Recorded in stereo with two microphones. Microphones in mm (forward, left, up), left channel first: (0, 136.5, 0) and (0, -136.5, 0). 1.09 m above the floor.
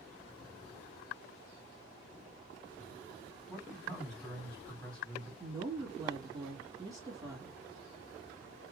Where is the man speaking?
5° left (ahead or behind), 3 m.